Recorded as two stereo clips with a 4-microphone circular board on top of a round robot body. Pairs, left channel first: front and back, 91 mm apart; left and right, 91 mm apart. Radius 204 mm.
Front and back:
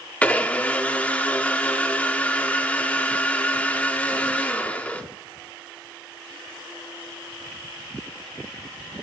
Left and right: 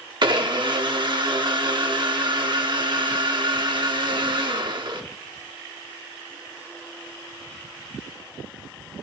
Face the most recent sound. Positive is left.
turn(degrees=-70)